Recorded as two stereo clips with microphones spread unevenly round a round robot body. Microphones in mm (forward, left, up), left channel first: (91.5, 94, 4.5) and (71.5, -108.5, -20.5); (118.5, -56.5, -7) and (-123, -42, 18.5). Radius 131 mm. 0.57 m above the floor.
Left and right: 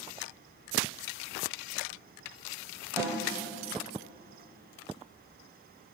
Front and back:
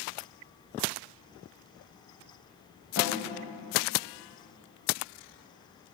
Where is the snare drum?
20° right, 1.9 m.